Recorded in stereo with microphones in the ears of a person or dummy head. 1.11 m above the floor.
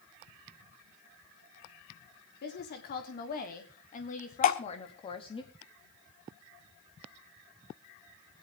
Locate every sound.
2.4 s a woman speaking: 50° left (ahead or behind), 3 m; by 5.4 s 25° left (ahead or behind), 1.9 m
4.4 s dripping: 40° left (ahead or behind), 1.3 m